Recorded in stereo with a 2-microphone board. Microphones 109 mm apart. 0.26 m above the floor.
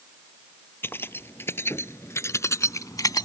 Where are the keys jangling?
20° left (ahead or behind); by 3.2 s 40° left (ahead or behind).